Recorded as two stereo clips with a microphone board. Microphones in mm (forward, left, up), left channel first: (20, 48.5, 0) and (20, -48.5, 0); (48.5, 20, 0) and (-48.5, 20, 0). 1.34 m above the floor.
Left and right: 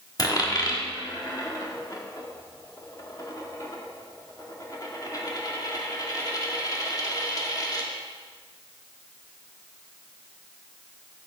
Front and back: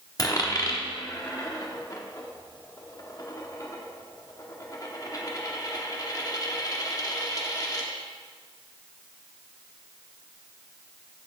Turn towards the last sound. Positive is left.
turn(degrees=45)